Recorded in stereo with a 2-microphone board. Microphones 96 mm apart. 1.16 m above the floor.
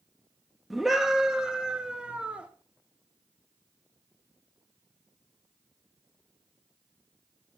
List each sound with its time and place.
0.7 s a scream: centre (ahead or behind), 2 m; by 2.5 s 15° right (ahead or behind), 3.5 m